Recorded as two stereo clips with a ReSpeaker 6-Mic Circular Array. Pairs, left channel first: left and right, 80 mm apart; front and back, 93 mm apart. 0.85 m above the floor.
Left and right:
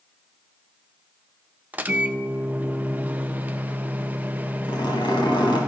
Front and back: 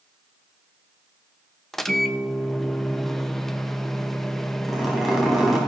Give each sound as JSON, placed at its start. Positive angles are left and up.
{"t": 1.7, "sound": "a microwave", "azimuth_deg": -75, "distance_m": 0.6}
{"t": 4.7, "sound": "a zipper", "azimuth_deg": 95, "distance_m": 3.5}